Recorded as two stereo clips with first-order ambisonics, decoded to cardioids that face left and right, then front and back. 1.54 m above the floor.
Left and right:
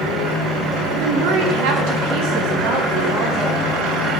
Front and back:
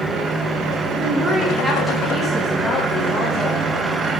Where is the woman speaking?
120° right, 1.4 m; by 3.7 s 50° right, 2.5 m.